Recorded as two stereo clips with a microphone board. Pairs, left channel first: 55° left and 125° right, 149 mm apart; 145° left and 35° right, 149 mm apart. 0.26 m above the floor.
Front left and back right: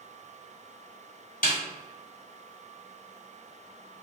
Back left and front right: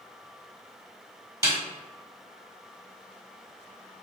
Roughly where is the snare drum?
Ahead left.